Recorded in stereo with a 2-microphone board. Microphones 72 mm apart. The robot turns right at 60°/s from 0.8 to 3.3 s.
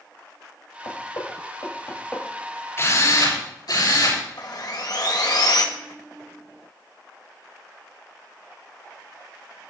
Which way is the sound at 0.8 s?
85° left.